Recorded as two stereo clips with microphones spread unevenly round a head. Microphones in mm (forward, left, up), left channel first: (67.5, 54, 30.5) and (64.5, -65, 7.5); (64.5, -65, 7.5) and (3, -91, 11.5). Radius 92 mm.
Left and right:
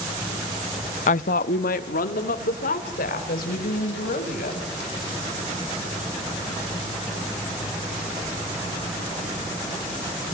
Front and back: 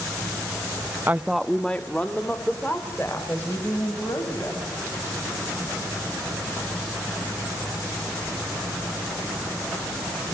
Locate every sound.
1.1 s a woman speaking: 130° left, 0.6 m; by 4.7 s 100° left, 6 m